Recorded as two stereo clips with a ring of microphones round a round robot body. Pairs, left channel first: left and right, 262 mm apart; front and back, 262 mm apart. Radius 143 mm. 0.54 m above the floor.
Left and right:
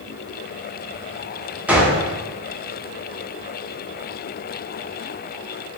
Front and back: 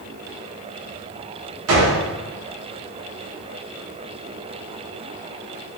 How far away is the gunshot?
About 1.0 m.